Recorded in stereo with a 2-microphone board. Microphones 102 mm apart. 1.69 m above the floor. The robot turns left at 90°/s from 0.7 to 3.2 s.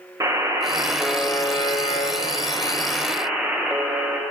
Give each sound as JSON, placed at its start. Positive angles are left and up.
{"t": 0.2, "sound": "a buzzer", "azimuth_deg": -145, "distance_m": 0.8}